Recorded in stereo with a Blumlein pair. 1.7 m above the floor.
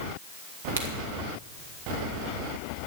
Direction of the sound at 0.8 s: 65° right.